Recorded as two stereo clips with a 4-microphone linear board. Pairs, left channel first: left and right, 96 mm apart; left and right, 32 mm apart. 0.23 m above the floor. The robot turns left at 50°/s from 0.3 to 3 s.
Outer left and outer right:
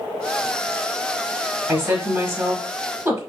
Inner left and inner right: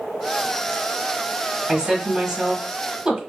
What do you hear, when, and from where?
1.7 s a woman speaking: 20° right (ahead or behind), 1.2 m